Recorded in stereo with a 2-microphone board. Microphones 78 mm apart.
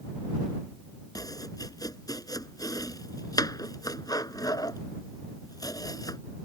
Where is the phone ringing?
I don't hear a phone ringing.